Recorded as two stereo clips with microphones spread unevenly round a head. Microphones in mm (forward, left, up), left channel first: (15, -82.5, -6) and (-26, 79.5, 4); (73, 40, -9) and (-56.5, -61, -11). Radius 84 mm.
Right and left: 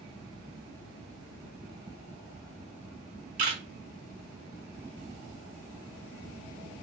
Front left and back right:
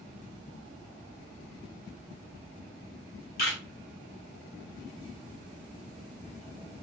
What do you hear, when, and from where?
3.4 s a camera shutter: 65° left, 1.6 m